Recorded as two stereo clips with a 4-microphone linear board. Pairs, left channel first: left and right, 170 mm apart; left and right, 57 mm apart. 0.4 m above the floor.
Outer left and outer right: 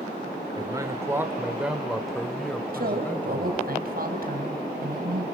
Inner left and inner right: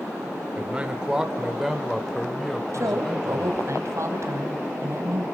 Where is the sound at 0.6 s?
25° right (ahead or behind), 1.3 m; by 3.7 s 15° left (ahead or behind), 2.5 m.